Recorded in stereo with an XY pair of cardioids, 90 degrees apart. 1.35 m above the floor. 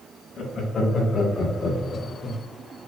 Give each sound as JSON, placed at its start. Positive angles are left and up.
{"t": 0.4, "sound": "laughter", "azimuth_deg": 55, "distance_m": 1.9}